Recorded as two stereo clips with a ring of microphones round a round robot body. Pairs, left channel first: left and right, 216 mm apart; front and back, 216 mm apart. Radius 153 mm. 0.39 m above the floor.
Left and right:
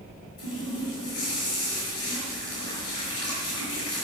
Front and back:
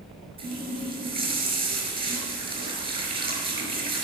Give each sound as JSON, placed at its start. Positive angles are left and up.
{"t": 0.4, "sound": "a running tap", "azimuth_deg": 115, "distance_m": 4.5}